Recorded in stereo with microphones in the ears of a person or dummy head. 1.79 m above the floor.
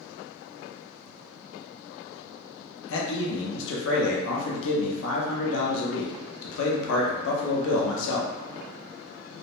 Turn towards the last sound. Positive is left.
turn(degrees=70)  # may be behind; listen again after turning